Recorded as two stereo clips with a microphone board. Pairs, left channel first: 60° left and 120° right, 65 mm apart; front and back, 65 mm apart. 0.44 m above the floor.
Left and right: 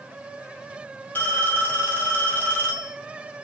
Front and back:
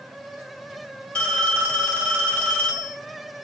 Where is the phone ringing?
45° left, 0.8 m.